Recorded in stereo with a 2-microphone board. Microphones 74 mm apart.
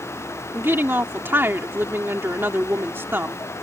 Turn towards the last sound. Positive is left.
turn(degrees=-30)  # may be behind; listen again after turning